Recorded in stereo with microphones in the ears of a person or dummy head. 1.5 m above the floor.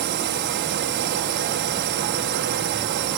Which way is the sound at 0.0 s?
55° right (ahead or behind).